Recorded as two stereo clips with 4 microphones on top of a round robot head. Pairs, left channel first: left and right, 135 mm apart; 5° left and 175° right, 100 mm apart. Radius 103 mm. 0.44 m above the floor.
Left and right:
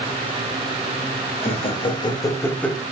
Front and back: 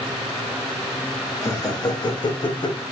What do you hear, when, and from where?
1.4 s laughter: 55° left, 1.6 m; by 2.8 s straight ahead, 1.0 m